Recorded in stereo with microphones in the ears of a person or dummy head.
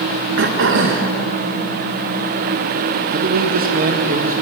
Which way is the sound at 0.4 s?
60° right (ahead or behind).